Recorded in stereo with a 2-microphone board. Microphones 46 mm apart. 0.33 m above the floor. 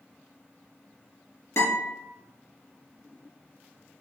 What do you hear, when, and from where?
1.6 s a guitar: 70° left (ahead or behind), 2 m